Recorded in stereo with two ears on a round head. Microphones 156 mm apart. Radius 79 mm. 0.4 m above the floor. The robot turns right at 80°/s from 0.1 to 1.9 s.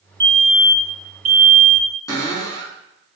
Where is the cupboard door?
20° left (ahead or behind), 3 m.